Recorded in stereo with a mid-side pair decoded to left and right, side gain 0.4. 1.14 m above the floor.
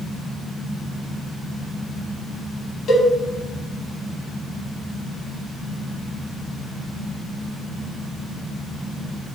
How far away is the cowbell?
About 3.5 m.